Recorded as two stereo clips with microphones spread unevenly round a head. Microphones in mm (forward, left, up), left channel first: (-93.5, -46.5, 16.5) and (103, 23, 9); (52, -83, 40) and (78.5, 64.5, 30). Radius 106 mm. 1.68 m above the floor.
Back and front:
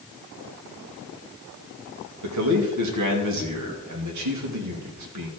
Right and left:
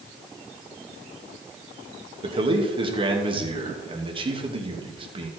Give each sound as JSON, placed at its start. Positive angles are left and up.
{"t": 2.2, "sound": "a man speaking", "azimuth_deg": 25, "distance_m": 2.5}